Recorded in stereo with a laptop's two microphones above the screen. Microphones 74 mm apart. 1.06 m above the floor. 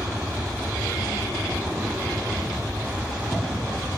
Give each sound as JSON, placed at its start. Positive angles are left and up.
{"t": 0.0, "sound": "an aircraft", "side_deg": -10}